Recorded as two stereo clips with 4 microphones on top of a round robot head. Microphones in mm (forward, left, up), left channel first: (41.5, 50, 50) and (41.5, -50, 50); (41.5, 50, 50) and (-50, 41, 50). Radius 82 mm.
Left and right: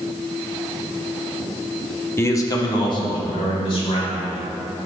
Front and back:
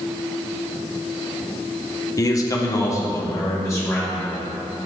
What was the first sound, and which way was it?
A man speaking, 35° left.